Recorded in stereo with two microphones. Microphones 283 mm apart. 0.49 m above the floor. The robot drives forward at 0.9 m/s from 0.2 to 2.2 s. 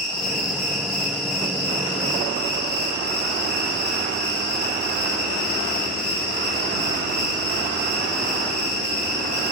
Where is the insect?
70° left (ahead or behind), 8 m; by 9.5 s 80° left, 7.5 m.